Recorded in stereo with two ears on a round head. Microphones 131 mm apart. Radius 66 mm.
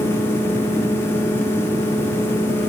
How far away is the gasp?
I don't hear a gasp.